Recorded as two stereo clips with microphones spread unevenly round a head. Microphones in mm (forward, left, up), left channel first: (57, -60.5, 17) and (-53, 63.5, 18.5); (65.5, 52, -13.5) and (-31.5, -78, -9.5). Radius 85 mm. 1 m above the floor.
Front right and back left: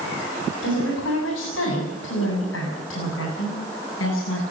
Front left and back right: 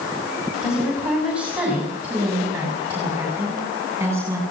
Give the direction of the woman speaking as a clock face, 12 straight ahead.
1 o'clock.